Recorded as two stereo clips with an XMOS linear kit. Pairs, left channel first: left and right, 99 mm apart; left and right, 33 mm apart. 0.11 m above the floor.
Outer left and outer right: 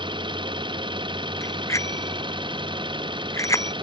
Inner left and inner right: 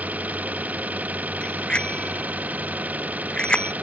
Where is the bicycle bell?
30° left (ahead or behind).